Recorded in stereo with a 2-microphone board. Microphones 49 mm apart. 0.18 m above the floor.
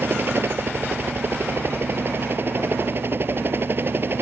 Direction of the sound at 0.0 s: 45° right (ahead or behind).